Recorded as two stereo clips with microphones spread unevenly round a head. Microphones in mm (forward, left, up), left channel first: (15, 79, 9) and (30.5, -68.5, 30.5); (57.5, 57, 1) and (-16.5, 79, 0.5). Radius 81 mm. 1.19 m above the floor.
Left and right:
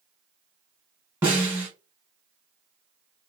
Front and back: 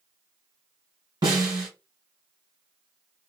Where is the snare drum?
155° right, 1.9 m.